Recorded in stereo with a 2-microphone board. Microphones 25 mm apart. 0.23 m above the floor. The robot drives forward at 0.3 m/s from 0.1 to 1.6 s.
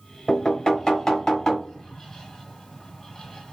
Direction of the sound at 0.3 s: 20° left (ahead or behind).